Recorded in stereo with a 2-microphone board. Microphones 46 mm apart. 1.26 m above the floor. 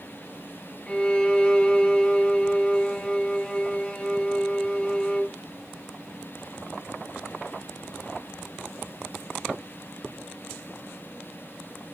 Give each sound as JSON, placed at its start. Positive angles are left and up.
{"t": 0.9, "sound": "a violin", "side_deg": 20, "distance_m": 2.0}